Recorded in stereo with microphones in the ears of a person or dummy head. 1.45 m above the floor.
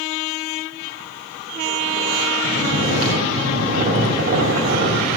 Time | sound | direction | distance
2.4 | snoring | 55° right (ahead or behind) | 2.5 m